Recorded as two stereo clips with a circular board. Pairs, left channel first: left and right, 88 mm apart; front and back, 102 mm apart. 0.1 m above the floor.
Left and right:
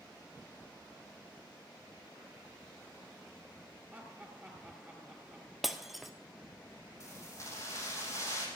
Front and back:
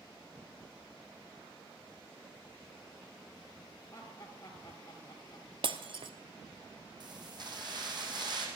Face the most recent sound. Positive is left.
turn(degrees=140)